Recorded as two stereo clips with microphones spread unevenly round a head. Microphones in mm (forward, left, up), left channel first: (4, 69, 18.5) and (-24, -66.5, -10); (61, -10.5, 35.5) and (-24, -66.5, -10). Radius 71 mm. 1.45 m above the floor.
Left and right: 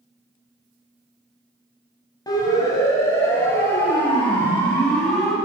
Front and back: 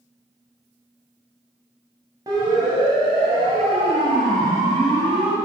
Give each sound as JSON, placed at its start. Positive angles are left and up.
{"t": 2.3, "sound": "a siren", "azimuth_deg": 145, "distance_m": 9.5}